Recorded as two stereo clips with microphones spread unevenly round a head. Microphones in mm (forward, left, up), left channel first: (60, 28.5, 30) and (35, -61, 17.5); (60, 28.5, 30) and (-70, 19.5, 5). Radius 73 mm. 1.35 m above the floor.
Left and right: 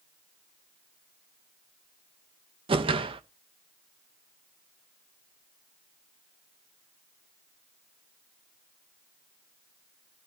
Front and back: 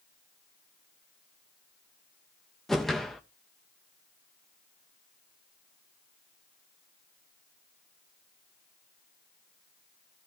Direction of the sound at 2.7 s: 80° right.